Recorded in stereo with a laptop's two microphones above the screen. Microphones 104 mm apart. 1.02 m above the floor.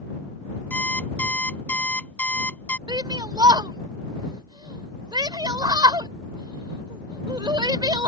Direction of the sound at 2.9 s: 45° right (ahead or behind).